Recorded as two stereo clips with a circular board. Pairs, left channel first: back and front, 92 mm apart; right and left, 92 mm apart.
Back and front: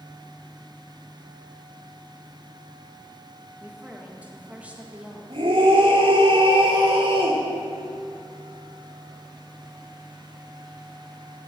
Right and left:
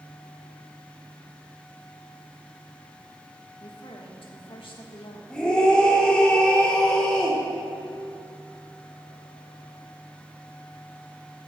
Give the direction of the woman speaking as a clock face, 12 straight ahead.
2 o'clock.